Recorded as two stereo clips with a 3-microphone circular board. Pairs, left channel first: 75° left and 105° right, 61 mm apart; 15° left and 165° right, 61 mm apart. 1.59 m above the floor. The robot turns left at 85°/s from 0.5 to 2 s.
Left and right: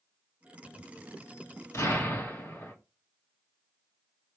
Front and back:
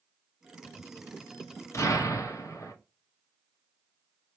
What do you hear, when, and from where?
1.7 s an explosion: 50° left, 1.3 m; by 2.7 s 25° left, 1.3 m